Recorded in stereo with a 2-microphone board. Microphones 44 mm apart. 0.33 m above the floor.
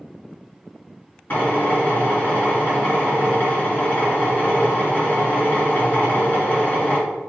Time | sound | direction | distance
1.3 | a drill | 45° left (ahead or behind) | 1.9 m